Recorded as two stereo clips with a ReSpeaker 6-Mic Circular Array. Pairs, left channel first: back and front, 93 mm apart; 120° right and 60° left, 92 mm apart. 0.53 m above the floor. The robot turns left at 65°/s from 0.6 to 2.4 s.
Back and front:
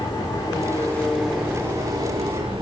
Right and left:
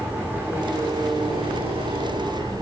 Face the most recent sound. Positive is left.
turn(degrees=15)